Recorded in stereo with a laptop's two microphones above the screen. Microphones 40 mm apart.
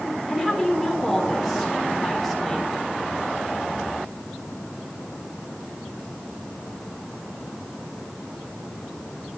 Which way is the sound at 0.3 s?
Centre (ahead or behind).